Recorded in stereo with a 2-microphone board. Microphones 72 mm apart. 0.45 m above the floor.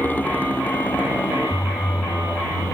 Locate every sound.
0.0 s a motorcycle: 25° left (ahead or behind)